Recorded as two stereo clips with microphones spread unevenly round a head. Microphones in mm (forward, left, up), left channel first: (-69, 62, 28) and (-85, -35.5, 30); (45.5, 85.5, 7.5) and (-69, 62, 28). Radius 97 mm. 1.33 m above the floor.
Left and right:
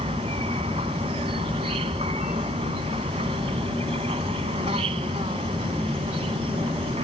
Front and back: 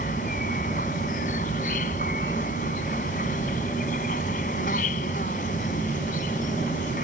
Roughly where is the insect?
Ahead right.